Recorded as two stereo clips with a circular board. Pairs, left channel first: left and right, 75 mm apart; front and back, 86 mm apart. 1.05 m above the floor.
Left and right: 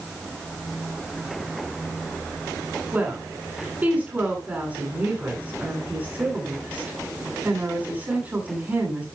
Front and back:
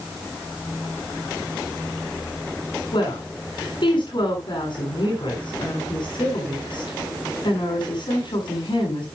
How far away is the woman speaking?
About 8 m.